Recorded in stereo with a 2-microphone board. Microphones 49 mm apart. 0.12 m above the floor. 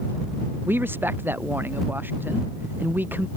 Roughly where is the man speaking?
Right.